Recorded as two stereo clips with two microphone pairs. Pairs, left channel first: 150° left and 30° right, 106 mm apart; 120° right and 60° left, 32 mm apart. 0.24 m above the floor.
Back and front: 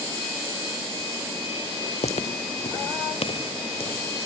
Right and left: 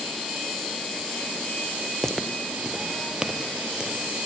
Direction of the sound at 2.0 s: 160° left.